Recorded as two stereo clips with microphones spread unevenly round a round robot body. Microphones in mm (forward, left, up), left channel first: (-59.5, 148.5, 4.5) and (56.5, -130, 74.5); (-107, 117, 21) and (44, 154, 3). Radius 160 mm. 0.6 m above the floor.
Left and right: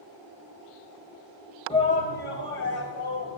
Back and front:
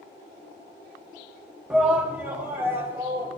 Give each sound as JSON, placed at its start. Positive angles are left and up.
{"t": 1.7, "sound": "a shout", "azimuth_deg": 85, "distance_m": 1.2}